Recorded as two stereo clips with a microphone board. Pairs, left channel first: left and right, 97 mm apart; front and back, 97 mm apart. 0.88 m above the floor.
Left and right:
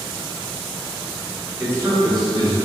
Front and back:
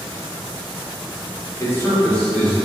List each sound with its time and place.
1.6 s a man speaking: 30° right, 0.8 m; by 2.6 s 85° right, 1.3 m